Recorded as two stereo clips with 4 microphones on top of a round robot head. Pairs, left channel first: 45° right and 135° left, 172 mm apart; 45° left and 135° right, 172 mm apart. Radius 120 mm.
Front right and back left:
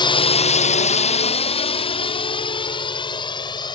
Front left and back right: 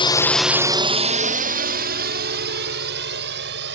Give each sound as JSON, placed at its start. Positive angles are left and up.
{"t": 0.0, "sound": "a drone", "azimuth_deg": 0}